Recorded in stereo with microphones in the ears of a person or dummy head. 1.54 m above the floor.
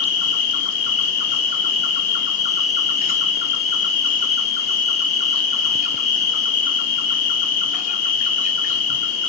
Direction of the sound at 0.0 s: 45° left (ahead or behind).